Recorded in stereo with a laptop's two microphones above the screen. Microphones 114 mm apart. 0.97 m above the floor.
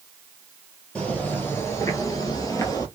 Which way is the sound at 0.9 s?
10° left (ahead or behind).